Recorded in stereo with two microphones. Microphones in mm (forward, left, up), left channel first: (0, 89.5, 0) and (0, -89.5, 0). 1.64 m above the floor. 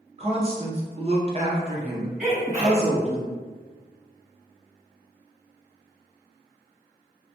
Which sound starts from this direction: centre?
A sneeze, at 2.2 s.